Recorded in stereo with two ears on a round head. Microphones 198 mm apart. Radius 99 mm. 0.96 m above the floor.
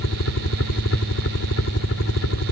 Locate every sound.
0.0 s a helicopter: 60° left (ahead or behind)